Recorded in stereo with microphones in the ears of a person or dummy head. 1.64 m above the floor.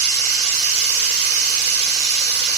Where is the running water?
75° right (ahead or behind), 2 m.